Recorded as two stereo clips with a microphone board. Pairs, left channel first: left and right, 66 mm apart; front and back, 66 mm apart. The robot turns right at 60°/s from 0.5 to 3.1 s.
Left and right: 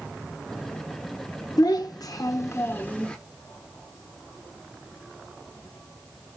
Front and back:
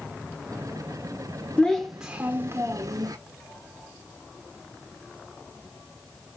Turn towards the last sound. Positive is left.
turn(degrees=165)